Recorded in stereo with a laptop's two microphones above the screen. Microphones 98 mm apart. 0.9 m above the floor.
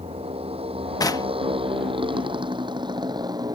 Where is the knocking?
40° left (ahead or behind).